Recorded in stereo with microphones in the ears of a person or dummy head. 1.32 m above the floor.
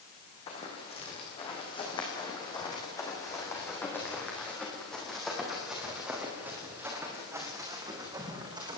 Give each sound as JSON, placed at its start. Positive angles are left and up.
{"t": 0.5, "sound": "running footsteps", "side_deg": 30, "distance_m": 5.0}